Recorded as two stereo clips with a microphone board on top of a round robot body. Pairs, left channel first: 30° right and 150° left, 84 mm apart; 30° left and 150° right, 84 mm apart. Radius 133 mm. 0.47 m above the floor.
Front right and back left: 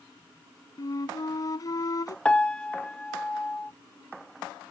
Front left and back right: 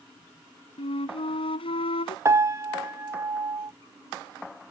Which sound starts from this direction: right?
A piano, at 2.2 s.